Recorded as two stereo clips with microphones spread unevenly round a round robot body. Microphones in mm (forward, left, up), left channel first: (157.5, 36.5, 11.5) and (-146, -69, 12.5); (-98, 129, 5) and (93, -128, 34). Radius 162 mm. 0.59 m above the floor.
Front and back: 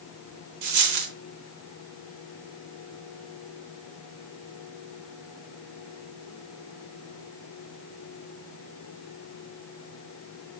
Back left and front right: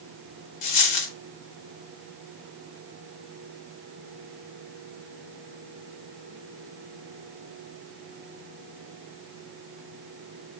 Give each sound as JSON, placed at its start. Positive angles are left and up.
{"t": 0.6, "sound": "a dropped coin", "azimuth_deg": 155, "distance_m": 0.7}